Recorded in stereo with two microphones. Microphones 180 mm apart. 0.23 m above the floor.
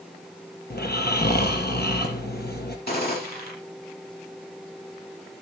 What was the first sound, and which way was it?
Snoring, 60° left (ahead or behind).